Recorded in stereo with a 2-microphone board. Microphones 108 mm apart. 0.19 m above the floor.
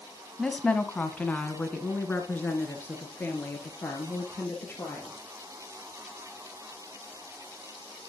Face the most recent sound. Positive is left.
turn(degrees=20)  # may be behind; listen again after turning